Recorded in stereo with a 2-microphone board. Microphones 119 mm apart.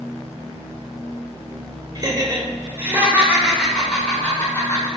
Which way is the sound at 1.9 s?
35° right (ahead or behind).